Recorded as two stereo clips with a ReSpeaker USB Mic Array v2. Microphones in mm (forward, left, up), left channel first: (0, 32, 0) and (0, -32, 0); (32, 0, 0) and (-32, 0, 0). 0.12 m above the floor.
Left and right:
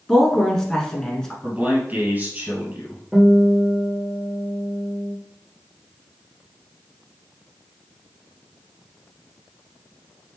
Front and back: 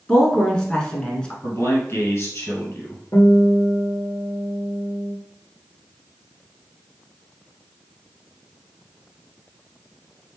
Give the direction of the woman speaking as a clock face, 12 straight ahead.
11 o'clock.